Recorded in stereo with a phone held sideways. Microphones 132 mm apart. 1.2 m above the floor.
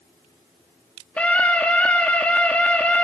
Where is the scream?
10° left (ahead or behind), 2.5 m.